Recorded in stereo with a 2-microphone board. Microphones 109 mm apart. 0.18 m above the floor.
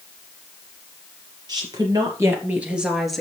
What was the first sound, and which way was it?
A woman speaking, 35° right (ahead or behind).